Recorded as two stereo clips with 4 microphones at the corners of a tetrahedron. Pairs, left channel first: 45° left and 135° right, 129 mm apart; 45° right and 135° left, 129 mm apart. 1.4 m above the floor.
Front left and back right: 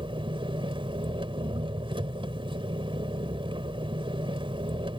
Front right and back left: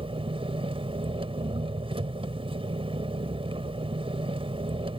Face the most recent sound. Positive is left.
turn(degrees=180)